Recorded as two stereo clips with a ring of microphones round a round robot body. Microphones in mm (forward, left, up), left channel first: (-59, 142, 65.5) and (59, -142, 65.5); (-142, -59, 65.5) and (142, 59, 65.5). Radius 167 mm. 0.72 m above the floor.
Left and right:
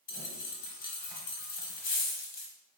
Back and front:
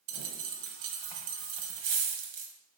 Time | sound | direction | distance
0.1 | a dropped coin | 50° left | 1.1 m